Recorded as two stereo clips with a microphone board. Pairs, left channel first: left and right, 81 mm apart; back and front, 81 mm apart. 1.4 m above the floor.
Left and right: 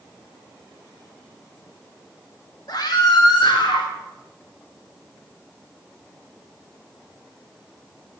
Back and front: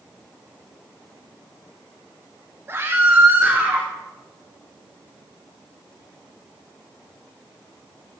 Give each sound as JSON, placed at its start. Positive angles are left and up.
{"t": 2.7, "sound": "a scream", "azimuth_deg": 65, "distance_m": 3.0}